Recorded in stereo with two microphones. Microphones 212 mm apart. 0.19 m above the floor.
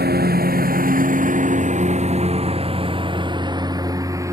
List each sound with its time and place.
0.0 s a lawn mower: 50° right (ahead or behind); by 4.3 s 15° right (ahead or behind)